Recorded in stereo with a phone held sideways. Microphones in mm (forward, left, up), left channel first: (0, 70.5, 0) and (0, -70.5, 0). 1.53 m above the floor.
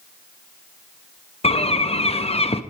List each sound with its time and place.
1.4 s a bird: 45° left (ahead or behind), 0.6 m